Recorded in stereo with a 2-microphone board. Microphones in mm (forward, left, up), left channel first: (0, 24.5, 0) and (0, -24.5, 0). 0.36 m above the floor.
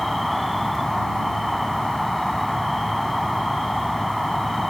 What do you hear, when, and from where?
0.0 s an insect: centre (ahead or behind)